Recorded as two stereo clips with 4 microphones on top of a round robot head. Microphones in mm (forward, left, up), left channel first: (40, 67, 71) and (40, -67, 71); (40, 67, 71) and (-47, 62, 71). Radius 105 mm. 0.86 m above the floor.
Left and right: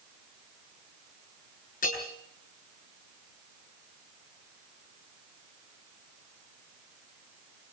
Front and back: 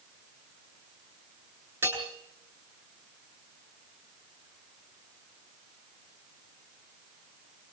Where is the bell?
120° left, 9 m.